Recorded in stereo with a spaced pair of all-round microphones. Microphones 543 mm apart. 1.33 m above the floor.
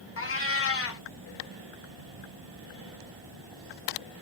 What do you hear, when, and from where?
0.2 s a cat meowing: 25° left (ahead or behind), 0.5 m